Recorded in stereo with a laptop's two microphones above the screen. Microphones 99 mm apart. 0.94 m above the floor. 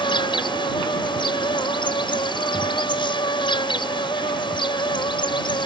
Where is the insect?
55° left (ahead or behind).